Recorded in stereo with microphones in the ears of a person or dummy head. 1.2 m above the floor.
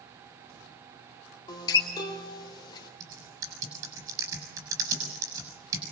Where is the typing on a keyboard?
20° right (ahead or behind), 7 m.